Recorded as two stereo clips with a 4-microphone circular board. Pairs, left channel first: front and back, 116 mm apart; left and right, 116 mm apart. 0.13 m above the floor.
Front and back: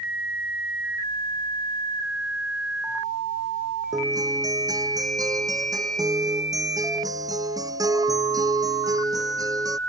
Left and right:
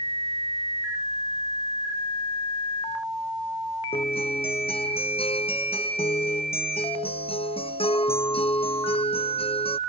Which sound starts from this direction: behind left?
A guitar, at 3.9 s.